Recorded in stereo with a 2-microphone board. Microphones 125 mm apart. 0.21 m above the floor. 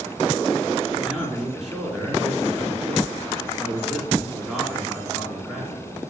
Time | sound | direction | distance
0.9 | a man speaking | centre (ahead or behind) | 2.5 m